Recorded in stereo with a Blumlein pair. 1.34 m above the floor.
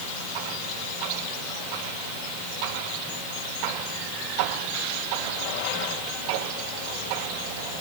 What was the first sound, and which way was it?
Only background noise.